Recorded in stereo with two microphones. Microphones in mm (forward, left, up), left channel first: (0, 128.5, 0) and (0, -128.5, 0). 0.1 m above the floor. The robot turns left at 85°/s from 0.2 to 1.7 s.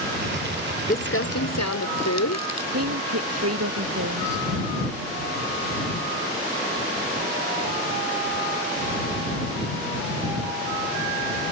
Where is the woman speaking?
65° right (ahead or behind).